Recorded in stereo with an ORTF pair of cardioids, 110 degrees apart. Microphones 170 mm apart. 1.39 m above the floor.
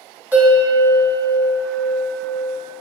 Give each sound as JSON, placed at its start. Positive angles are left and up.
{"t": 0.3, "sound": "a bell", "azimuth_deg": -10, "distance_m": 1.2}